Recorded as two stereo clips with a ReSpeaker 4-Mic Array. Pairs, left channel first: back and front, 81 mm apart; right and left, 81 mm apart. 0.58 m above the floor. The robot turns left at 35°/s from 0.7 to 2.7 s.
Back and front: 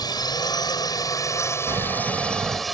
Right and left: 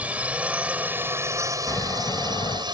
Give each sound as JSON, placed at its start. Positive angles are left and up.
{"t": 0.0, "sound": "a drone", "azimuth_deg": 160}
{"t": 1.7, "sound": "snoring", "azimuth_deg": -35}